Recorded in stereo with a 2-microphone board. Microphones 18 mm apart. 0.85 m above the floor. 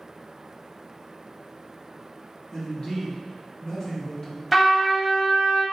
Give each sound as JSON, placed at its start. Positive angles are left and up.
{"t": 2.5, "sound": "a man speaking", "side_deg": 50, "distance_m": 1.3}
{"t": 4.5, "sound": "a trumpet", "side_deg": 0, "distance_m": 0.7}